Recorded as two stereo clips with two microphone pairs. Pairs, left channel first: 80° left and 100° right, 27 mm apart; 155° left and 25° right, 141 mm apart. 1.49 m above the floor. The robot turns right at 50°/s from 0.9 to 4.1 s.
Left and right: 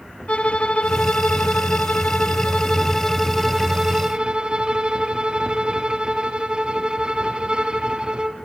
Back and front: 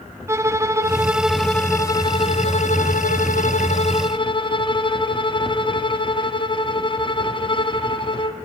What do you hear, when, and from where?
0.3 s a violin: 45° left, 0.7 m; by 8.3 s 155° right, 0.7 m